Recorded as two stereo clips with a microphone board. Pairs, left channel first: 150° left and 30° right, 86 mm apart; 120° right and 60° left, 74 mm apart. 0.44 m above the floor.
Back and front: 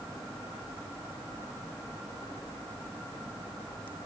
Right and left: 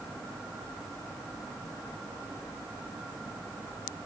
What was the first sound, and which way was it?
Only background noise.